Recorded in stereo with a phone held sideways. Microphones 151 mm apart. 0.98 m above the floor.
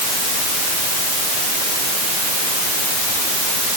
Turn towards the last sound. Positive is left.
No sound to turn to.